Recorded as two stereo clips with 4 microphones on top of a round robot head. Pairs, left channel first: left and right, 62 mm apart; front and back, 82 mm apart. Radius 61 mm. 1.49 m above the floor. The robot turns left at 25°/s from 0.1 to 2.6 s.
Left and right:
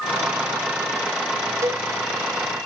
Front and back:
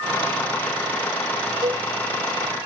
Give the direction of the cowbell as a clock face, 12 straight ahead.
4 o'clock.